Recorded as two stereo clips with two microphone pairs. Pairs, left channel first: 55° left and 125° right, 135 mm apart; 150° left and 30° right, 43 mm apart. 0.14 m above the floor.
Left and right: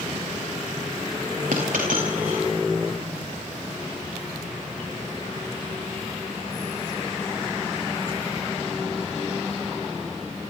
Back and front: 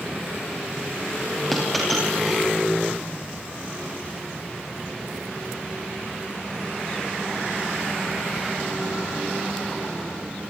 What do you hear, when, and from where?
1.5 s a dropped coin: 125° right, 8 m